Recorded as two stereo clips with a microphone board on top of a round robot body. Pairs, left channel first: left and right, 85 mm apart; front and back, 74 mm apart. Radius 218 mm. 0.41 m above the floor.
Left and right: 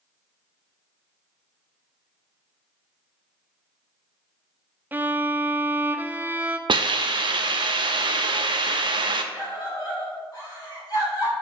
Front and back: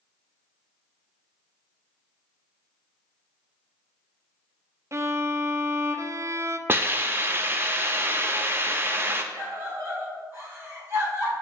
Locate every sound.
4.9 s a violin: 150° right, 0.6 m
6.7 s a hiss: 120° right, 0.5 m
9.3 s a scream: 125° left, 2.5 m